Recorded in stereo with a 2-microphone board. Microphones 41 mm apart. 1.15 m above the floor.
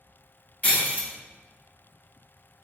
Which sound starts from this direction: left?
Breaking glass, at 0.6 s.